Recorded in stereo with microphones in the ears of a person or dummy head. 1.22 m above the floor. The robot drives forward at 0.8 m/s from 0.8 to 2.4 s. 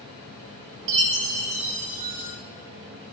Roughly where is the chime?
Right.